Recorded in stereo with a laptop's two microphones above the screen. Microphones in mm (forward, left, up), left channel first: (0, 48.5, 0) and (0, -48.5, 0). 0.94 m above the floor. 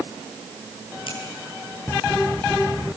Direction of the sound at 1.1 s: 65° left (ahead or behind).